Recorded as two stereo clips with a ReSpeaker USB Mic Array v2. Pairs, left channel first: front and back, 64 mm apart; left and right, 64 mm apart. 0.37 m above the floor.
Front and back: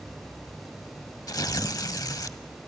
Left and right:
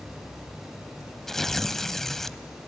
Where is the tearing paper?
10° left, 0.6 m.